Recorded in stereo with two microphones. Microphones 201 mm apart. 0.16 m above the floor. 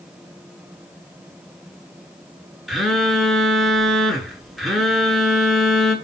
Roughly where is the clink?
No clink in this recording.